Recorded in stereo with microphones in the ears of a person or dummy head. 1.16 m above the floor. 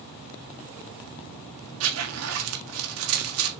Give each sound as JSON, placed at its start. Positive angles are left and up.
{"t": 1.8, "sound": "a zipper", "side_deg": -80, "distance_m": 1.6}